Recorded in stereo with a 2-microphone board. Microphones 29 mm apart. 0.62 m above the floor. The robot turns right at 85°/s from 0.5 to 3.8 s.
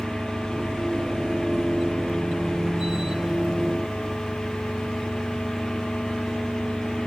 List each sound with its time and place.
0.0 s an engine running: 175° left; by 7.1 s 100° left